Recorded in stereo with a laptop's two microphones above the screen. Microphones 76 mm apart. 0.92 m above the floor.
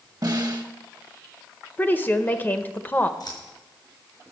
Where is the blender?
No blender in this recording.